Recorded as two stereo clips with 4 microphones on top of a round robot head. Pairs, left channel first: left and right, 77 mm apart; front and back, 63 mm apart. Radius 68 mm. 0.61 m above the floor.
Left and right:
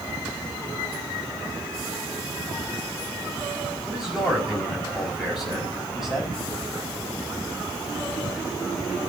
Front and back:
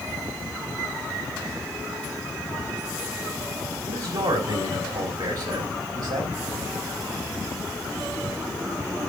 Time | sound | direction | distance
3.9 | a man speaking | 175° right | 5 m